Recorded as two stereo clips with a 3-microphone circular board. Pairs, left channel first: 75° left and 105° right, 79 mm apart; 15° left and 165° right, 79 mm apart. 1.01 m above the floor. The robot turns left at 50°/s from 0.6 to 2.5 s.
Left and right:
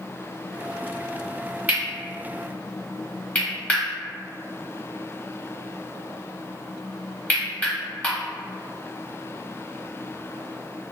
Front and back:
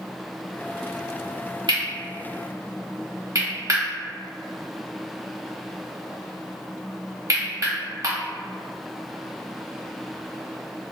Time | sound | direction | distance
1.7 | cutlery clinking | 170° right | 1.2 m